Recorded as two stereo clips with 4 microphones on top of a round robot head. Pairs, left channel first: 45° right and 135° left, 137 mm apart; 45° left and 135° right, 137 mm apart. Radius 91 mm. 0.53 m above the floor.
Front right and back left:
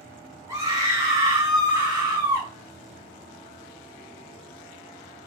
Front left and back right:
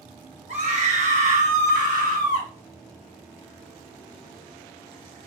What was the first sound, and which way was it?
A scream, 160° right.